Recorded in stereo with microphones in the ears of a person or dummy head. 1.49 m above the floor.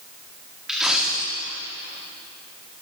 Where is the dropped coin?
5° right (ahead or behind), 1.6 m.